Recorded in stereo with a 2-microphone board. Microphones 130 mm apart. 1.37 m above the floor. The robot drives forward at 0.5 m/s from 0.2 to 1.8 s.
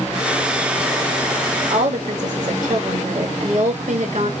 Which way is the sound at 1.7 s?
75° right (ahead or behind).